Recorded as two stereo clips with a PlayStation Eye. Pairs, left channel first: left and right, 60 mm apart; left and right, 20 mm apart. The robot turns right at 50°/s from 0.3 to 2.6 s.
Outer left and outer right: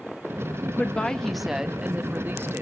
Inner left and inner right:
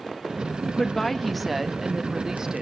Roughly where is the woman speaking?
Behind left.